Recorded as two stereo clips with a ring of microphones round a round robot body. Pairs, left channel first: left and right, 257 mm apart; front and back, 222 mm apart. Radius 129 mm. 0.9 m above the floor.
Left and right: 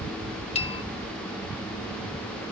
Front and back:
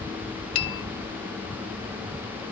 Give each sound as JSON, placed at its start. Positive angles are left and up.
{"t": 0.6, "sound": "a bell", "azimuth_deg": 30, "distance_m": 0.8}